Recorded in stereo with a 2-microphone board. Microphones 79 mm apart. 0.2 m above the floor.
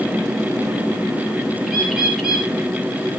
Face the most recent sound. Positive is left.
turn(degrees=0)  # may be behind; listen again after turning